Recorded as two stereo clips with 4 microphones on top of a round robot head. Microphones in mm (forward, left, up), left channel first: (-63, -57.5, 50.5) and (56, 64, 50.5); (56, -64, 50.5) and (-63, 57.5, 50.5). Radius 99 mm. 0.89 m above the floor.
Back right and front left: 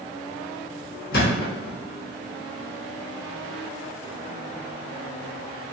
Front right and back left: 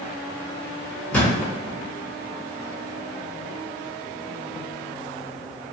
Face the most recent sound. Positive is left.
turn(degrees=-125)